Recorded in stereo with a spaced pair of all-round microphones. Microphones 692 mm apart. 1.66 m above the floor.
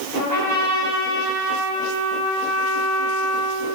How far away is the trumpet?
About 3 m.